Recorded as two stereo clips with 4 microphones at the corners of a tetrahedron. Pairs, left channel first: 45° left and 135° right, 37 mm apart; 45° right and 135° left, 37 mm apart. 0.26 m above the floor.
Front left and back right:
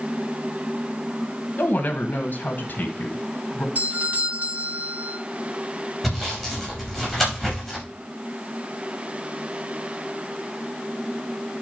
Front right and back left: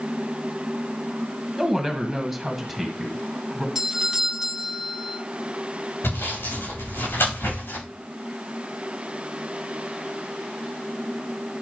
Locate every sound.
1.6 s a woman speaking: 45° left, 1.8 m
3.8 s a doorbell: 155° right, 2.5 m
6.0 s sawing: 40° right, 6.5 m